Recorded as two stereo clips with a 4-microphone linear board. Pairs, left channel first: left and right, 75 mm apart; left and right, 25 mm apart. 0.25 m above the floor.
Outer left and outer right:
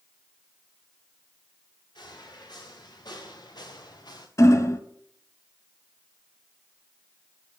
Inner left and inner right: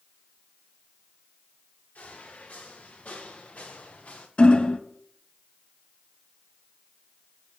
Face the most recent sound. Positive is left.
turn(degrees=45)  # may be behind; listen again after turning